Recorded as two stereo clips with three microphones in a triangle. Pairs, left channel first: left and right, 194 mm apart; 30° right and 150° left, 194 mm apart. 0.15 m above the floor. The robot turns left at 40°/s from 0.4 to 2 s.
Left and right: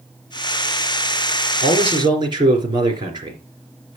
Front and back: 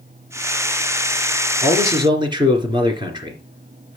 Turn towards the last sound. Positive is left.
turn(degrees=-150)